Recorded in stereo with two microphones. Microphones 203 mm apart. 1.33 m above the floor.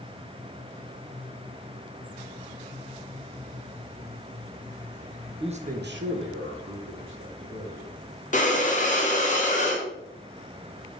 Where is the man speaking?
25° right (ahead or behind), 0.6 m; by 7.9 s 65° right (ahead or behind), 1.7 m.